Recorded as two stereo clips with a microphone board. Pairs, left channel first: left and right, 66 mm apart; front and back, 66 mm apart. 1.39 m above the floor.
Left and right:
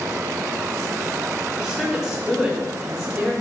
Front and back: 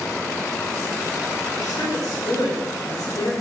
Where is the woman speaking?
Straight ahead, 4.5 m.